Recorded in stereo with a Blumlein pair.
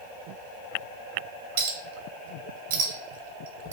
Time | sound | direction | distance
1.6 | a clink | 55° right | 0.7 m